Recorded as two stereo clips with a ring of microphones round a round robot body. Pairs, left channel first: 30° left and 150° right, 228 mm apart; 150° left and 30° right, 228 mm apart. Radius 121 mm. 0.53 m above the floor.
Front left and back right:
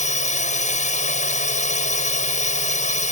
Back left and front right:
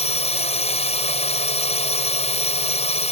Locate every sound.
0.0 s a drone: 90° left